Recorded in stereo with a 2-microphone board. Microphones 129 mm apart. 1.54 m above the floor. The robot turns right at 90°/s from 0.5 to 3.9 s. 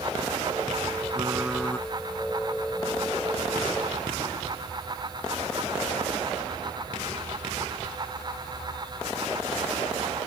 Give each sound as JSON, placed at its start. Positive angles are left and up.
{"t": 1.1, "sound": "typing on a keyboard", "azimuth_deg": -35}